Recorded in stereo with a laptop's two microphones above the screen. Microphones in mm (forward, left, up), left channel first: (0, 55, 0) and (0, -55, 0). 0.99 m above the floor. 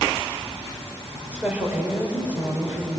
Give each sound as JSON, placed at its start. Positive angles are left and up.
{"t": 1.3, "sound": "a woman speaking", "side_deg": -15, "distance_m": 3.5}